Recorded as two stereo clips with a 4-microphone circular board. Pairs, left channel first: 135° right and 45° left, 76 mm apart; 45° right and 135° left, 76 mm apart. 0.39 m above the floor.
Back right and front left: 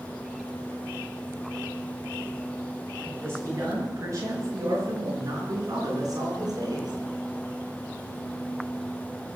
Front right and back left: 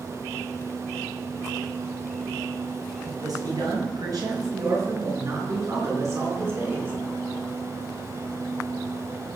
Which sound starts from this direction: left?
A man speaking, at 3.0 s.